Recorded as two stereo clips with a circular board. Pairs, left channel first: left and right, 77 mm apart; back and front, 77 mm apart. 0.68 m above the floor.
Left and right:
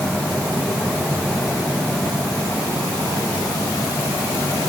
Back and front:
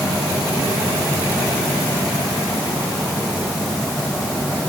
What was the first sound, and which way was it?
Only background noise.